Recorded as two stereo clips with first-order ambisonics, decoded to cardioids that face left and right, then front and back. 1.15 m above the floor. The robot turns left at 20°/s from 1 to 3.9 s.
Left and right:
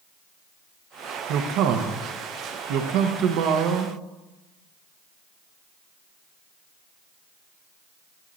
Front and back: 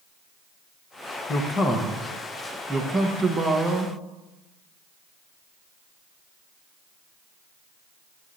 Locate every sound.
1.3 s a man speaking: 65° right, 1.0 m; by 4.0 s 115° right, 1.0 m